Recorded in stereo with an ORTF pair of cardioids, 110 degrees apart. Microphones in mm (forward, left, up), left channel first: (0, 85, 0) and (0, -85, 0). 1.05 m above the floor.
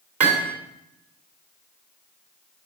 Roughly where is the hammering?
Ahead right.